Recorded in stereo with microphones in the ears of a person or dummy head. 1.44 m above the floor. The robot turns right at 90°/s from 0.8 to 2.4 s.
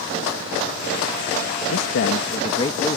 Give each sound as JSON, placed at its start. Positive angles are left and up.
{"t": 1.7, "sound": "a man speaking", "azimuth_deg": 90}